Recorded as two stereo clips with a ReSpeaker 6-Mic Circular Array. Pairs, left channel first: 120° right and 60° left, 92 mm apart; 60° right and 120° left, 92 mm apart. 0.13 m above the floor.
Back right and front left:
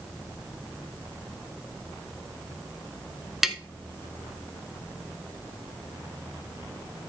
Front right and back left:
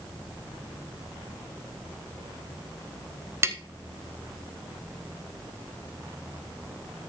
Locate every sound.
3.4 s tapping: 145° left, 0.8 m